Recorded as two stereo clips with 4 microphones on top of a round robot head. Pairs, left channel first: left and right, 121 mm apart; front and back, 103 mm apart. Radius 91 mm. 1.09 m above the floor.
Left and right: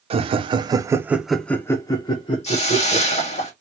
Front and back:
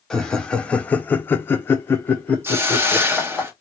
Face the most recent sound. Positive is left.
turn(degrees=110)